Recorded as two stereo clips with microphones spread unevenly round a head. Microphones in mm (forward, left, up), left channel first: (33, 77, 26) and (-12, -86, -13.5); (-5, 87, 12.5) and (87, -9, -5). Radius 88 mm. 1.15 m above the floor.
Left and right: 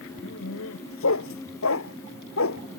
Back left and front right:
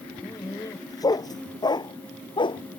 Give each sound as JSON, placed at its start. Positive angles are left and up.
{"t": 0.2, "sound": "a dog barking", "azimuth_deg": 65}